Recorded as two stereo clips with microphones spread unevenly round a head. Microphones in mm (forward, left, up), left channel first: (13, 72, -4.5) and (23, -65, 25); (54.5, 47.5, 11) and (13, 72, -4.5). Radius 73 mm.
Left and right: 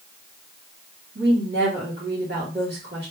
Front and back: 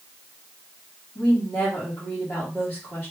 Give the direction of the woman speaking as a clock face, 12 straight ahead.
4 o'clock.